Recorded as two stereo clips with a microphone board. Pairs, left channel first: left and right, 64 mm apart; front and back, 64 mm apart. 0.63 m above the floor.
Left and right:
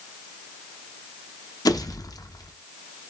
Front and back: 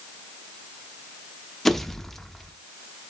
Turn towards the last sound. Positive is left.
turn(degrees=85)